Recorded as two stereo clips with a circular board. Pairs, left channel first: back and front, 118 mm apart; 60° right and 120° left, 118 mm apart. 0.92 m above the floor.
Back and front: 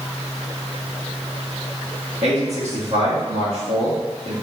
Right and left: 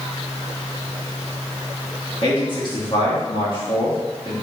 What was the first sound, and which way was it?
A man speaking, 15° right.